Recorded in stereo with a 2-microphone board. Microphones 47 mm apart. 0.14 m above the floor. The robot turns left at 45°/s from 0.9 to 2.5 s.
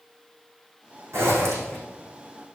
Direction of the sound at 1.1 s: 70° right (ahead or behind).